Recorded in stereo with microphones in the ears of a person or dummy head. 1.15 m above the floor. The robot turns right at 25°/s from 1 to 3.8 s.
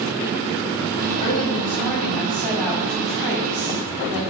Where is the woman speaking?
135° left, 1.8 m; by 4.2 s 160° right, 1.8 m.